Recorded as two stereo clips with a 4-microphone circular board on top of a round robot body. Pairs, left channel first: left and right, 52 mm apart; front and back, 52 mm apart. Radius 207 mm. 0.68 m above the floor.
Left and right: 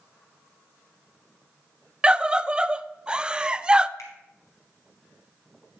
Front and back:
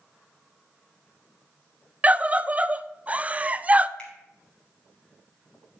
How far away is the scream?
About 0.6 m.